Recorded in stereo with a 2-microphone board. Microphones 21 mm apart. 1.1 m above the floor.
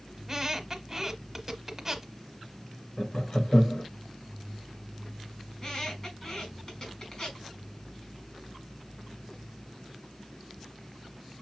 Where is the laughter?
55° left (ahead or behind), 1.4 m.